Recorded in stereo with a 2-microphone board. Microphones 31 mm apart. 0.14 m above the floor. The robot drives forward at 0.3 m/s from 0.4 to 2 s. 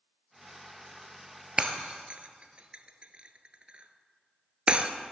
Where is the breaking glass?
30° right (ahead or behind), 0.7 m; by 4.9 s 35° right (ahead or behind), 0.6 m.